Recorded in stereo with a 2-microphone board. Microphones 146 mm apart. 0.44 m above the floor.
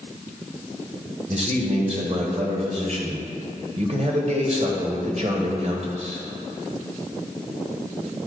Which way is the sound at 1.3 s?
50° right (ahead or behind).